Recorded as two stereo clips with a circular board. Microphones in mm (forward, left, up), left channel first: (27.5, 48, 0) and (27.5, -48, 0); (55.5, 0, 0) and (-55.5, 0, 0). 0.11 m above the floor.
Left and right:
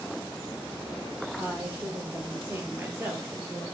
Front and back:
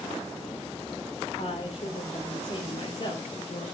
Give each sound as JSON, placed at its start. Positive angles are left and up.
{"t": 1.4, "sound": "a woman speaking", "azimuth_deg": -20, "distance_m": 3.5}